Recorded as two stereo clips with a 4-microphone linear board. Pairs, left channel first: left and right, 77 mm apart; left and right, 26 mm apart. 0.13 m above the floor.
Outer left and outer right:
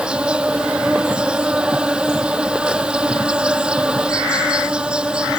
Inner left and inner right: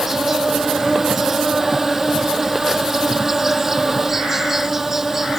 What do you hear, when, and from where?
0.0 s an insect: 15° right (ahead or behind)